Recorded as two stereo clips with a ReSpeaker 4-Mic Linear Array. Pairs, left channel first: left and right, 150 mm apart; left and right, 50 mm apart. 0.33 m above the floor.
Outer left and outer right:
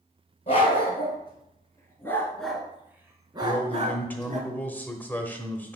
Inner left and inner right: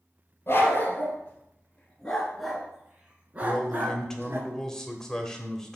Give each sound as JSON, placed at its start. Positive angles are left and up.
{"t": 0.5, "sound": "a dog barking", "side_deg": 40, "distance_m": 2.5}
{"t": 3.4, "sound": "a man speaking", "side_deg": 10, "distance_m": 1.1}